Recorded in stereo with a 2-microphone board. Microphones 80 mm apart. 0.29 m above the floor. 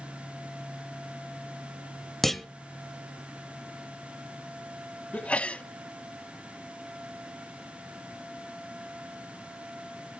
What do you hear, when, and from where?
2.2 s a clunk: centre (ahead or behind), 0.9 m
5.1 s a sneeze: 15° left (ahead or behind), 1.7 m